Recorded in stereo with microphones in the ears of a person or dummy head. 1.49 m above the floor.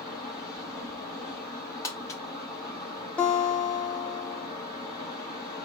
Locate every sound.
0.0 s a fan: 30° left (ahead or behind), 4 m
1.8 s crumpling: 20° left (ahead or behind), 1.0 m
3.2 s a guitar: 10° left (ahead or behind), 0.8 m